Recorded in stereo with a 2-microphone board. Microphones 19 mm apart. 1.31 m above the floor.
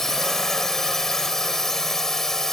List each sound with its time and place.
0.0 s a drone: 25° left (ahead or behind)